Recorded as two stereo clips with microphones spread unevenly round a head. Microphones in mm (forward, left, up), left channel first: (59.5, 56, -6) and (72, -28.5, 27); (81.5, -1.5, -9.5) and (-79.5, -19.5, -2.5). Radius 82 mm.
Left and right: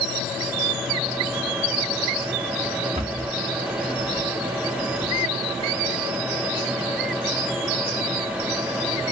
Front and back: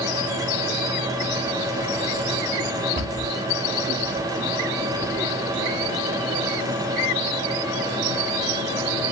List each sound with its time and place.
3.0 s a cupboard door: 135° right, 1.5 m